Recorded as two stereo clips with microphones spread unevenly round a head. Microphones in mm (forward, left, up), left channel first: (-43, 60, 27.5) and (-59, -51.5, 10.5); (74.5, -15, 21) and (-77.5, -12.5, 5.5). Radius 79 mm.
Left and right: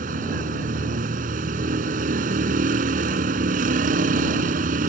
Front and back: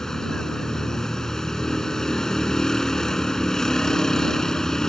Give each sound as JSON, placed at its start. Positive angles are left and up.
{"t": 0.0, "sound": "a vehicle", "azimuth_deg": -85}